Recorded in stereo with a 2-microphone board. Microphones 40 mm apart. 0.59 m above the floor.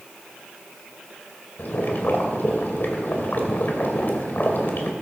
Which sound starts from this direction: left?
Boiling, at 1.6 s.